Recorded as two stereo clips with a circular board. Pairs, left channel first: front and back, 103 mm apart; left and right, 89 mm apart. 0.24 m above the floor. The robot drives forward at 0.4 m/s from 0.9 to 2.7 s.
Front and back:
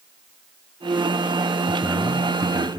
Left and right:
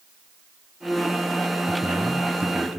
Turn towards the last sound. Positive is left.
turn(degrees=-150)